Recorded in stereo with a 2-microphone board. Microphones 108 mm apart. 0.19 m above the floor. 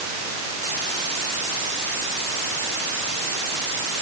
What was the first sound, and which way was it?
Only background noise.